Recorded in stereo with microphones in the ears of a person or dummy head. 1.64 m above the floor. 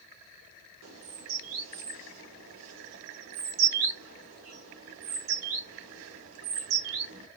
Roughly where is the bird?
Right.